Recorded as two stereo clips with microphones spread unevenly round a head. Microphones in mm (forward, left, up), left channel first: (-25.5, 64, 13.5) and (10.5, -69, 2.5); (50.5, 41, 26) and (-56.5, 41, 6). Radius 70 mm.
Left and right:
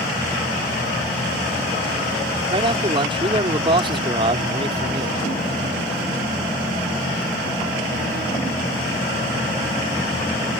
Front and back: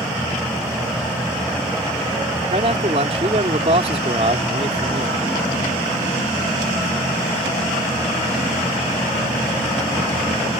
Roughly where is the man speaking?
Behind right.